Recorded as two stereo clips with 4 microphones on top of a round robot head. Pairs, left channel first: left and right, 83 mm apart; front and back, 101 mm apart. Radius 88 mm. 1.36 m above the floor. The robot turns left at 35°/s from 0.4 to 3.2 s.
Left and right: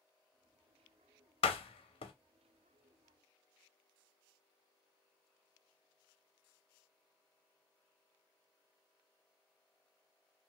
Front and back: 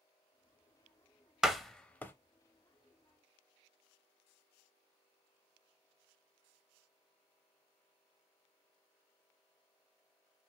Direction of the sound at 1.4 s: 95° left.